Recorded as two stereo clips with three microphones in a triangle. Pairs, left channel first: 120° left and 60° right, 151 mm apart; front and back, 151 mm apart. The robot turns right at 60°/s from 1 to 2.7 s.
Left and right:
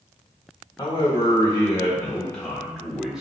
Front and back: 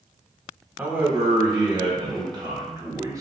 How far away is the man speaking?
About 0.9 m.